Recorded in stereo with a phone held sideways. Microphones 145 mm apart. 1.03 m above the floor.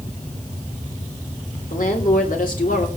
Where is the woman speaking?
70° left (ahead or behind), 3.5 m; by 2.9 s 65° left (ahead or behind), 3 m.